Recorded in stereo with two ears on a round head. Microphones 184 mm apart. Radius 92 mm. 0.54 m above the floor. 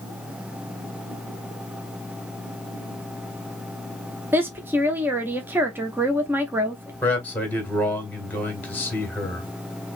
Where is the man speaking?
10° left (ahead or behind), 1.8 m.